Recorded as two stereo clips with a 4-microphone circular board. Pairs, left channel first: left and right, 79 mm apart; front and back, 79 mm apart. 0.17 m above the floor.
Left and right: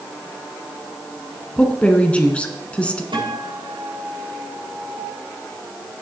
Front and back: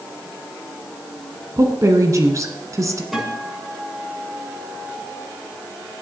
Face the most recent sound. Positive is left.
turn(degrees=-95)